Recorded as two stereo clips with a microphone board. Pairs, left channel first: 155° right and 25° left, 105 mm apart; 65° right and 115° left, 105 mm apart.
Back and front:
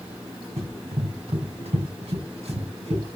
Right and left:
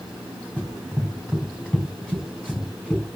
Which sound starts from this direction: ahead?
Running footsteps, at 0.6 s.